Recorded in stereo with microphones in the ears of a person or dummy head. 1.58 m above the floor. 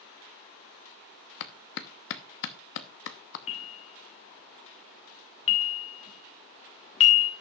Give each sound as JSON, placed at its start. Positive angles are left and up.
{"t": 1.4, "sound": "a clap", "side_deg": 60, "distance_m": 0.7}
{"t": 3.5, "sound": "a bell", "side_deg": 30, "distance_m": 1.0}